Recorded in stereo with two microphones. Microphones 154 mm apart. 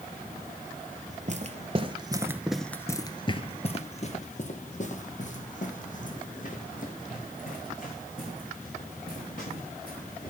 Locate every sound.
1.1 s footsteps: 50° right (ahead or behind), 1.1 m; by 10.3 s 60° left (ahead or behind), 5 m